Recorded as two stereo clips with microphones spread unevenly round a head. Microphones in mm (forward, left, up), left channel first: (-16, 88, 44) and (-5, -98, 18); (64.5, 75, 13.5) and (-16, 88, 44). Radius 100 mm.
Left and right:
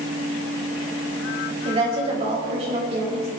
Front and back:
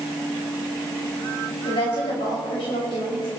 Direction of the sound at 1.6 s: 25° right.